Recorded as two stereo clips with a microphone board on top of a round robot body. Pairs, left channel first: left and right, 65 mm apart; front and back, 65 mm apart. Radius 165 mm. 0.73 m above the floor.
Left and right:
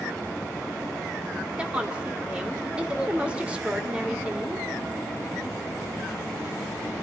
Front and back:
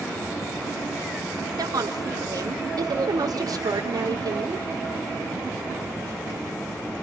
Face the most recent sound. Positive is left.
turn(degrees=-165)